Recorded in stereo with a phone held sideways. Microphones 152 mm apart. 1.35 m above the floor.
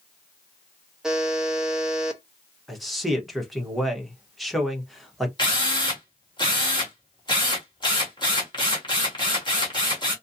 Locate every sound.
1.0 s a buzzer: 5° right (ahead or behind), 0.9 m
2.7 s a man speaking: centre (ahead or behind), 1.2 m
5.4 s a drill: 30° left (ahead or behind), 1.8 m